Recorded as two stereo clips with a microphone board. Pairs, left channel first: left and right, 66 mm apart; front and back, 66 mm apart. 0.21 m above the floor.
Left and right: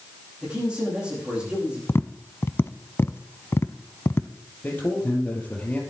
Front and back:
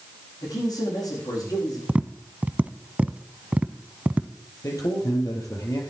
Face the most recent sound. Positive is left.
turn(degrees=25)